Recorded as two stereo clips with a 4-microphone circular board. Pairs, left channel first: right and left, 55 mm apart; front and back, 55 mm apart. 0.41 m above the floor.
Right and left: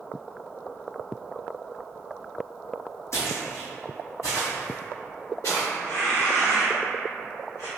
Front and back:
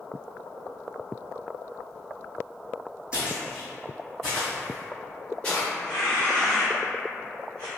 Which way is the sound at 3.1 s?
110° right.